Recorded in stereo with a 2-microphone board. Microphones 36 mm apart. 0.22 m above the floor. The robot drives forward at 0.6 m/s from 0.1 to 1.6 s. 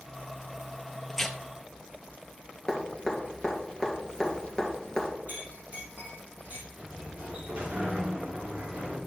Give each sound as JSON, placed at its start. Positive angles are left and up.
{"t": 1.1, "sound": "tearing paper", "side_deg": 10, "distance_m": 0.9}
{"t": 2.7, "sound": "dripping", "side_deg": 20, "distance_m": 2.5}
{"t": 5.3, "sound": "a clink", "side_deg": -50, "distance_m": 4.5}
{"t": 6.8, "sound": "a sliding door", "side_deg": -35, "distance_m": 3.0}